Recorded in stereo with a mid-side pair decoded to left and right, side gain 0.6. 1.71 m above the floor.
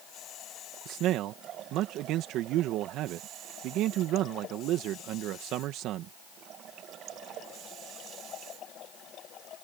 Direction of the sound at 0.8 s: 65° right.